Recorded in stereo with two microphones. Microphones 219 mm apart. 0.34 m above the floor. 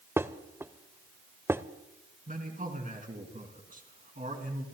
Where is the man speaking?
35° right (ahead or behind), 3 m.